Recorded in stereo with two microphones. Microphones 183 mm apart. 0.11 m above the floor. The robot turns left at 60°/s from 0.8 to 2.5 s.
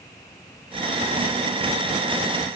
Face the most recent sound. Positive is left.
No sound to turn to.